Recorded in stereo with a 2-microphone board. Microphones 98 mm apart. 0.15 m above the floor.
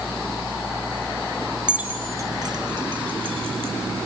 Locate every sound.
1.7 s keys jangling: 10° right (ahead or behind), 1.6 m; by 3.7 s 65° right (ahead or behind), 3 m